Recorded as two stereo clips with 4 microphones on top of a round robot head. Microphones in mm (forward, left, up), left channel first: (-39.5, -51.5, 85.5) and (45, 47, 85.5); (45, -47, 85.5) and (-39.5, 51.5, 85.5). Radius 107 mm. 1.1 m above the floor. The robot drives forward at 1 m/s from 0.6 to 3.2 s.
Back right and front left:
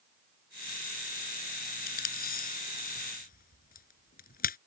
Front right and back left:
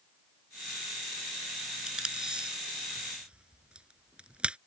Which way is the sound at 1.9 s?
145° right.